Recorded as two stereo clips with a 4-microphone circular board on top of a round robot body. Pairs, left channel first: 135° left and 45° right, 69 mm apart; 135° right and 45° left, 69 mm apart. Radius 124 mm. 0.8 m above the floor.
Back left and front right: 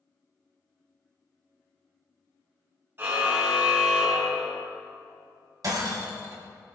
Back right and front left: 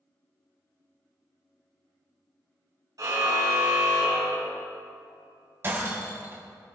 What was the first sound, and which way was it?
A car horn, 15° left.